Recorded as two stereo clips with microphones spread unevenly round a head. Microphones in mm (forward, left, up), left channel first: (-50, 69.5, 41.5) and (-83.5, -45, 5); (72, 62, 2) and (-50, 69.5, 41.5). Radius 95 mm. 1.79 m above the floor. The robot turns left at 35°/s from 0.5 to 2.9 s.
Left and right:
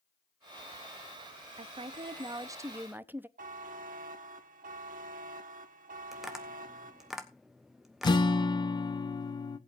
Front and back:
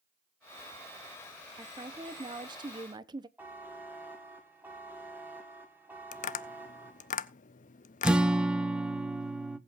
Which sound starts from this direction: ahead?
Tapping, at 6.1 s.